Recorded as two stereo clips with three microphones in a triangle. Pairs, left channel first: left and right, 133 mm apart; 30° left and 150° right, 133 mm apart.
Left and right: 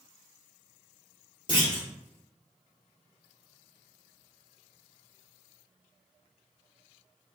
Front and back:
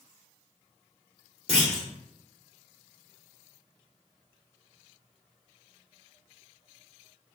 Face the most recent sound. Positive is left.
turn(degrees=110)